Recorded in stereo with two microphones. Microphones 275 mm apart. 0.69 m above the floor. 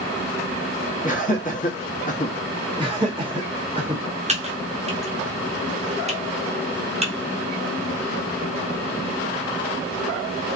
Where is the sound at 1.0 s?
30° left (ahead or behind), 1.0 m.